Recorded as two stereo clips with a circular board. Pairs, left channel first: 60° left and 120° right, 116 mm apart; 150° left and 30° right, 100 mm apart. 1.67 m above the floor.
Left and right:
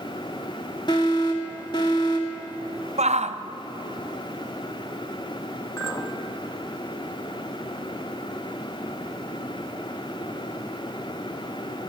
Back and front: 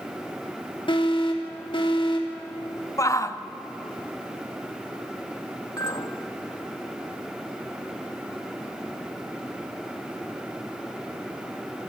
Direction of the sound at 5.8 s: 110° left.